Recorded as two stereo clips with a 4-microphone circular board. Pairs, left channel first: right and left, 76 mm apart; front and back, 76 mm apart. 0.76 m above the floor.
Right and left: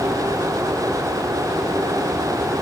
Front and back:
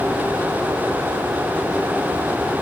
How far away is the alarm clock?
I don't hear an alarm clock.